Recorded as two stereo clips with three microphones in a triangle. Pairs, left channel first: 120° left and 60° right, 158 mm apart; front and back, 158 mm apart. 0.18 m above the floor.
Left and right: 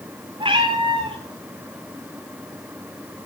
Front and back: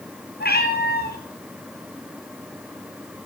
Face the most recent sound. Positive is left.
turn(degrees=0)